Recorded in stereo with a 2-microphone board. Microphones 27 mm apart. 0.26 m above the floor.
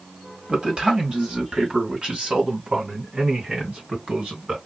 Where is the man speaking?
40° right (ahead or behind), 1.9 m; by 4.6 s 55° right (ahead or behind), 3.5 m.